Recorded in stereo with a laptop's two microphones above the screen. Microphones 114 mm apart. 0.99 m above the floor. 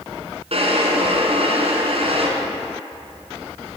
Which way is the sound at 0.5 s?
60° right (ahead or behind).